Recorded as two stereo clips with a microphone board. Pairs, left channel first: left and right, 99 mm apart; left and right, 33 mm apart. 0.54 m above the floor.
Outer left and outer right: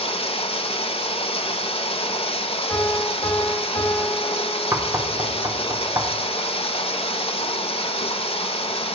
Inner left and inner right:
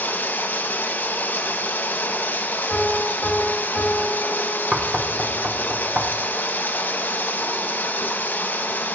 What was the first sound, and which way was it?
Running water, 70° left (ahead or behind).